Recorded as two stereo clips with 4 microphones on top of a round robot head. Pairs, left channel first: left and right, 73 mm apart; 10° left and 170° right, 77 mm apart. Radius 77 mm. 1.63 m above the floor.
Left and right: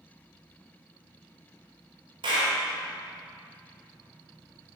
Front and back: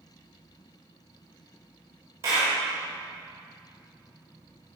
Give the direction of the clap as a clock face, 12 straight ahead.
4 o'clock.